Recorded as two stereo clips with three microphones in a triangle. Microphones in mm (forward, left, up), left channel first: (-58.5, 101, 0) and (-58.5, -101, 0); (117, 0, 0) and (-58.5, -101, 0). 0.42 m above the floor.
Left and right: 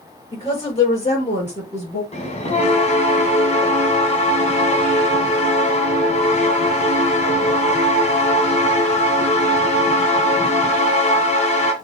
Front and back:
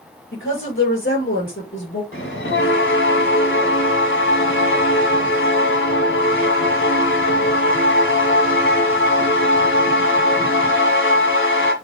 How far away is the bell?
About 1.8 m.